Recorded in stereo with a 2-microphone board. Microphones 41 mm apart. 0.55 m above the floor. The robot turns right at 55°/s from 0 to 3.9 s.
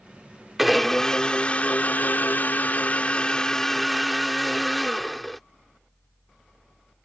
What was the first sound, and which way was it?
A blender, 5° right.